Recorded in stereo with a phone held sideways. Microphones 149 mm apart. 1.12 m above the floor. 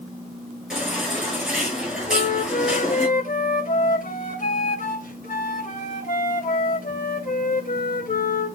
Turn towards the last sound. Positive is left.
turn(degrees=65)  # may be behind; listen again after turning